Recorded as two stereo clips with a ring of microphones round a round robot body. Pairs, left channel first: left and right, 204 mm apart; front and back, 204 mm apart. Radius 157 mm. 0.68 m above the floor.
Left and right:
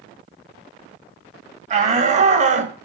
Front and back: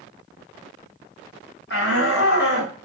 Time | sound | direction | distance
1.7 | a shout | 40° right | 5 m